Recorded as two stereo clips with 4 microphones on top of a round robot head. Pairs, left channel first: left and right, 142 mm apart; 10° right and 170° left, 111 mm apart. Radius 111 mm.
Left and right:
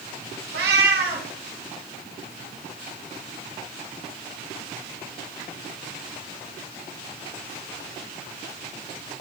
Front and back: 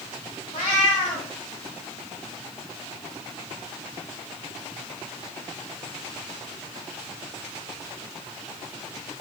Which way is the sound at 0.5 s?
70° right.